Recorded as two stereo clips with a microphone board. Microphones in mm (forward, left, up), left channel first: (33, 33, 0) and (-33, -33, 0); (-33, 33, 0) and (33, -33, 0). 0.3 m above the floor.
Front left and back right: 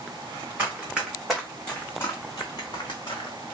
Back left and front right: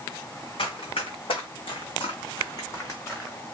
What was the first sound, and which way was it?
Running footsteps, 155° left.